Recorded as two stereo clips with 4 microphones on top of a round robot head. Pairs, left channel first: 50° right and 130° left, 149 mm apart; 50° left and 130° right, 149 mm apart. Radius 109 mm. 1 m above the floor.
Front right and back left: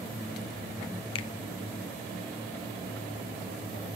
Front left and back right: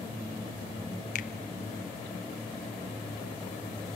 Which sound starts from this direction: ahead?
A finger snap, at 1.1 s.